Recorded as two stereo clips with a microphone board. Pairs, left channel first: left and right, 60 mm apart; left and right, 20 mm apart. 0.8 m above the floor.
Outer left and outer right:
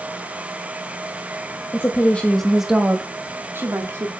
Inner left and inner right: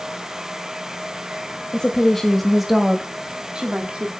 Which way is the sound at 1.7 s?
40° left (ahead or behind).